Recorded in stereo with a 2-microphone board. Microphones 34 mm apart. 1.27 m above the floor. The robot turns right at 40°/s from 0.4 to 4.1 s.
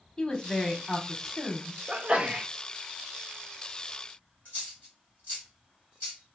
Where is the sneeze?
45° right (ahead or behind), 0.6 m; by 2.5 s 25° right (ahead or behind), 0.6 m.